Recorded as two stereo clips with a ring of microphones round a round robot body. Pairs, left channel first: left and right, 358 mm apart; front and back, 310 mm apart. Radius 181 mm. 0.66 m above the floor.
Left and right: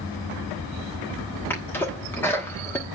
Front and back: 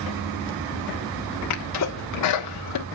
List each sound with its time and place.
1.5 s a sneeze: 5° left, 1.1 m